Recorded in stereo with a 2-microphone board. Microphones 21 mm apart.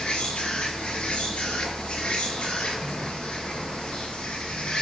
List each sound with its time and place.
0.0 s an insect: 60° left (ahead or behind), 4.5 m